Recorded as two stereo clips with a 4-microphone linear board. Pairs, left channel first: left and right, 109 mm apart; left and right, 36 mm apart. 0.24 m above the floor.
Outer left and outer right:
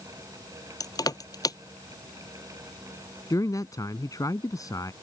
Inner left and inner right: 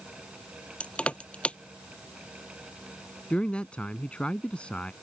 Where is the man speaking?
35° left (ahead or behind).